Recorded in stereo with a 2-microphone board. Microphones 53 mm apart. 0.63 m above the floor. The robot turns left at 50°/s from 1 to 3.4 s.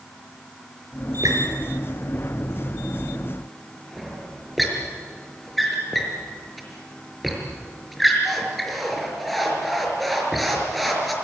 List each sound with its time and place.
1.2 s a squeak: 75° right (ahead or behind), 5 m; by 11.1 s centre (ahead or behind), 5 m